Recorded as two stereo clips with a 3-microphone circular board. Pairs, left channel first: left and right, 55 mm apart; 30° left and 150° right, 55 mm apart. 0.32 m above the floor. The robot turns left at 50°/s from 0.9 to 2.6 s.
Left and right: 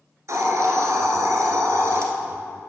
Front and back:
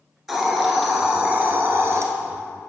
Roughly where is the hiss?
Ahead right.